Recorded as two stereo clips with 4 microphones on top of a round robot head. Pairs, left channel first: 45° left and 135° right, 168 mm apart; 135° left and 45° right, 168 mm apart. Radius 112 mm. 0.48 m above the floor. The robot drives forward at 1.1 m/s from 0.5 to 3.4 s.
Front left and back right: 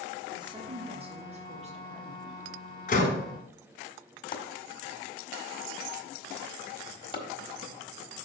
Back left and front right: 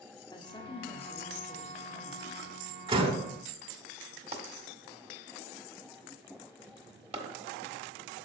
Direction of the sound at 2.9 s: 10° left.